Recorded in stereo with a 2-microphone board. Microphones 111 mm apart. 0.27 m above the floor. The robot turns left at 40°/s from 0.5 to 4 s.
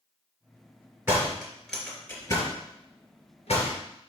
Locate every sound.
1.1 s a door slam: 20° right (ahead or behind), 2.5 m; by 3.8 s 75° left (ahead or behind), 2.5 m